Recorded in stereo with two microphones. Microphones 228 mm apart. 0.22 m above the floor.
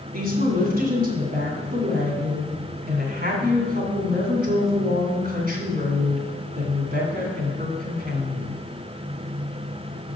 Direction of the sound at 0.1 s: 40° right (ahead or behind).